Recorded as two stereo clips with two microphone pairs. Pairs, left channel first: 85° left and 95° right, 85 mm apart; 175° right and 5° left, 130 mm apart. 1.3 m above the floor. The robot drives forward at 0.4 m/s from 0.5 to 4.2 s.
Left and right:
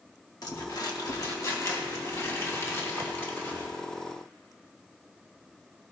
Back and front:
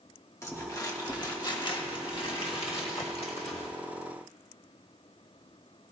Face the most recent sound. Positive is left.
turn(degrees=155)